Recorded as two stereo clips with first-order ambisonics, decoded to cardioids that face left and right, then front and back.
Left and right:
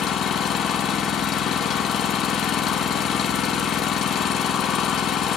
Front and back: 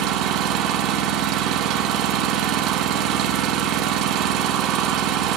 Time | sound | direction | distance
0.0 | an engine running | 140° left | 1.3 m